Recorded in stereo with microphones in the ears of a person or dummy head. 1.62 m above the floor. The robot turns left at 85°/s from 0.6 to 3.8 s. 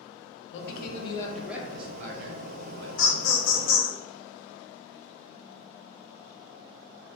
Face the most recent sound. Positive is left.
turn(degrees=40)